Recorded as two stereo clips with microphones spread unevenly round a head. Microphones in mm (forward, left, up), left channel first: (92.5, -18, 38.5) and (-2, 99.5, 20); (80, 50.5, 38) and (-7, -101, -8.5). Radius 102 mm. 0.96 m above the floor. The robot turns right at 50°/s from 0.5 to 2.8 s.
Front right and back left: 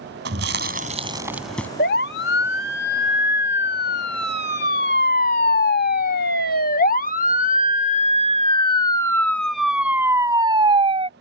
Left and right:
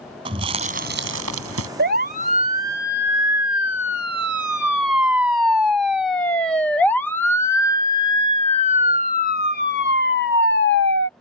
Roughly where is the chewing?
Behind.